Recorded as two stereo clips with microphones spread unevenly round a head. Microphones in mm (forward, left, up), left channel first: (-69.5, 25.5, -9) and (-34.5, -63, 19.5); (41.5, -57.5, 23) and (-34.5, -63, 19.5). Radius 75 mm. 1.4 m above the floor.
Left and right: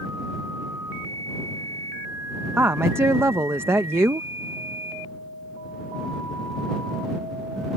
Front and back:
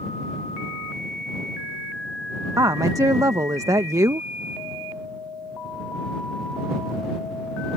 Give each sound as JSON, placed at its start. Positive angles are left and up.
{"t": 2.6, "sound": "a woman speaking", "azimuth_deg": -130}